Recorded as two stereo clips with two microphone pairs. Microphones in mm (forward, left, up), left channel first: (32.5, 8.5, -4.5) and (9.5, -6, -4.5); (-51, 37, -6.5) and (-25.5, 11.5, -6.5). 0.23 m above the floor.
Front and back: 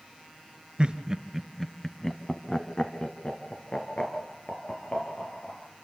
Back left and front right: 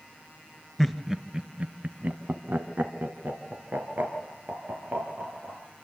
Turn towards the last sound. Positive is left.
turn(degrees=-5)